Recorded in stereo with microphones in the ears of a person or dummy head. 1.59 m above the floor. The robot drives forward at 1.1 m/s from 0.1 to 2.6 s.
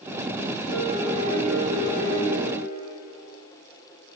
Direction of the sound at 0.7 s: 60° right (ahead or behind).